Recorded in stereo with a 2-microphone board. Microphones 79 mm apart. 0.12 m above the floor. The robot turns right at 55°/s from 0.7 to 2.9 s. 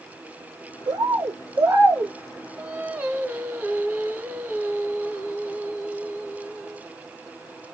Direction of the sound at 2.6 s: 15° right (ahead or behind).